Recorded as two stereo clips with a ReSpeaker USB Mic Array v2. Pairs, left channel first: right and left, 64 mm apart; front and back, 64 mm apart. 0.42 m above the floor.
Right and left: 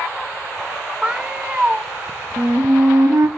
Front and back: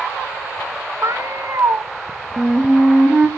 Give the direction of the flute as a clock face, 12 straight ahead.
8 o'clock.